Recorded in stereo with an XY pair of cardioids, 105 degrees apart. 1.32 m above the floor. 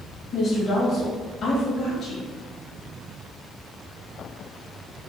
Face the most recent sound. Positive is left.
turn(degrees=55)